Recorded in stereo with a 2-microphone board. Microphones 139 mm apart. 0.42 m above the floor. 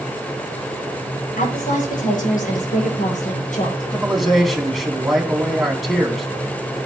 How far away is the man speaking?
About 3.5 m.